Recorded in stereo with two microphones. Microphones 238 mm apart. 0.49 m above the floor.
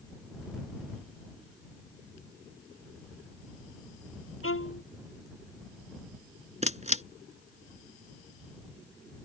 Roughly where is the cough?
I don't hear a cough.